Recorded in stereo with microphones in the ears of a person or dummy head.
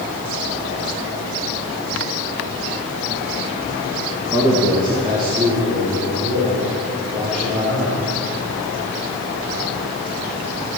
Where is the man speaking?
20° right (ahead or behind), 1.1 m; by 8.0 s 30° right (ahead or behind), 6.5 m.